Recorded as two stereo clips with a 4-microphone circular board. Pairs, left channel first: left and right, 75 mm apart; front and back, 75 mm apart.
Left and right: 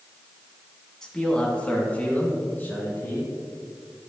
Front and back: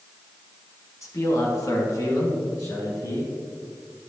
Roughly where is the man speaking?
Ahead.